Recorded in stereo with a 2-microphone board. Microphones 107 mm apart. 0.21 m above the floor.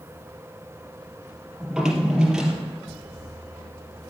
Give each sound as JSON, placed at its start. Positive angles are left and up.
{"t": 1.6, "sound": "a drawer", "side_deg": -5, "distance_m": 3.0}